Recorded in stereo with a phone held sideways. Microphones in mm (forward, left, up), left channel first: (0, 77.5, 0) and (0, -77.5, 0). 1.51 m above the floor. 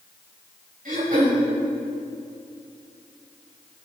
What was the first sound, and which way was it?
Throat clearing, 65° right (ahead or behind).